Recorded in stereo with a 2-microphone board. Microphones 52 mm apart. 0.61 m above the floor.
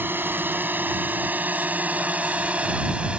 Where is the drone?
50° right (ahead or behind); by 3.2 s 25° right (ahead or behind).